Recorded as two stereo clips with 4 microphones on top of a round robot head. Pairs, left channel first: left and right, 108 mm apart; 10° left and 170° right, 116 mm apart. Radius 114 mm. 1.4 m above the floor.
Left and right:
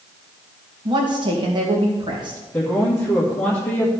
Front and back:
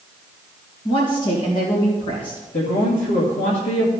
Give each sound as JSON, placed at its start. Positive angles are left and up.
{"t": 0.8, "sound": "a woman speaking", "azimuth_deg": -45, "distance_m": 2.0}
{"t": 2.5, "sound": "a man speaking", "azimuth_deg": 10, "distance_m": 1.9}